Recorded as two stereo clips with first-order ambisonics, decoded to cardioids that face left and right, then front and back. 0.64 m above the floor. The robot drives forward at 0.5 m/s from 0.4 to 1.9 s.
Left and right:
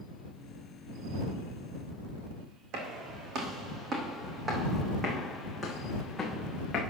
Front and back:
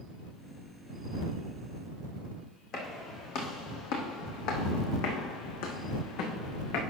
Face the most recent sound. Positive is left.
turn(degrees=15)